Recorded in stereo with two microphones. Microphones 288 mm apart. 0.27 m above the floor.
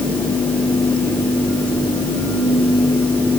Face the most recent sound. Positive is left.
No sound to turn to.